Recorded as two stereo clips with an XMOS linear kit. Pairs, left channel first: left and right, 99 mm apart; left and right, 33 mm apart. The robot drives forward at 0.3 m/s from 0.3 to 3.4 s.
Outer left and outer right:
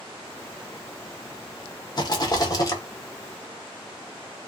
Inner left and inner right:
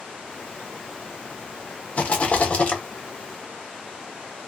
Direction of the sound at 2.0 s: 40° left (ahead or behind).